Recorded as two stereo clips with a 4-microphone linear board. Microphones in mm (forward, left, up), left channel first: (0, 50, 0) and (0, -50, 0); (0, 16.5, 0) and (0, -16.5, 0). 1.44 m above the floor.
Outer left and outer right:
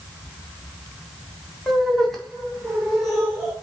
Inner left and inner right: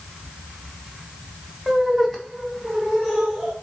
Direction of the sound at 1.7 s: Centre (ahead or behind).